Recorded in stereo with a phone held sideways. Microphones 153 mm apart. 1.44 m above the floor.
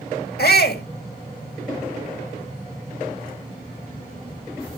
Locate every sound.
0.4 s a shout: 80° left, 2 m